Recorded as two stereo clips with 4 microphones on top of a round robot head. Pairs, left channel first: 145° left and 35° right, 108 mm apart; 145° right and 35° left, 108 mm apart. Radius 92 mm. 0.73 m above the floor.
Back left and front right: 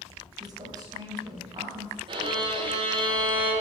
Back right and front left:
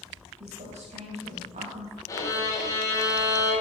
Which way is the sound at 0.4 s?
20° left.